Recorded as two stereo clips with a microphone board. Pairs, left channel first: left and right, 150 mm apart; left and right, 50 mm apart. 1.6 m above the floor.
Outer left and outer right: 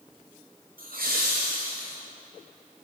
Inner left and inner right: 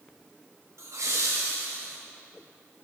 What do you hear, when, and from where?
0.8 s laughter: 70° right (ahead or behind), 0.7 m; by 2.0 s 75° right (ahead or behind), 1.4 m